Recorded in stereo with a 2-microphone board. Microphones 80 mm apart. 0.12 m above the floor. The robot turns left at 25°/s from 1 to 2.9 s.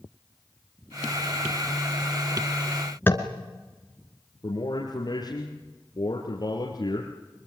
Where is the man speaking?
55° left (ahead or behind), 3 m.